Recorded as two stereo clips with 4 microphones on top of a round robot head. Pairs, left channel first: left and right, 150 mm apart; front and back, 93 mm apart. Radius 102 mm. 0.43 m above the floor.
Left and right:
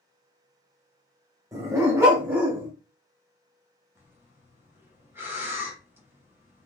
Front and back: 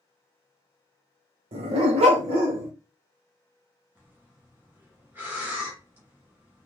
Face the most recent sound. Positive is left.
turn(degrees=-145)